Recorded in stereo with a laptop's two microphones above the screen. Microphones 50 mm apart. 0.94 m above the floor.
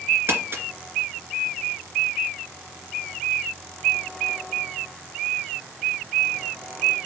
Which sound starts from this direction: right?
Crumpling, at 0.3 s.